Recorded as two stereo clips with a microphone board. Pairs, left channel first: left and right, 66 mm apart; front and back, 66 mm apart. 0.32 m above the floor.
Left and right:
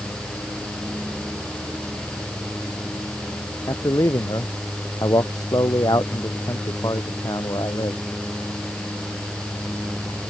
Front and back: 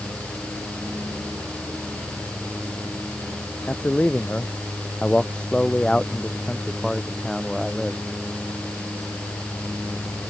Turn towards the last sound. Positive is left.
turn(degrees=85)